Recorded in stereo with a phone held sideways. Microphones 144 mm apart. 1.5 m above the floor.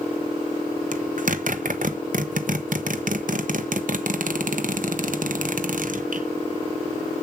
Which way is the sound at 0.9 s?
65° right (ahead or behind).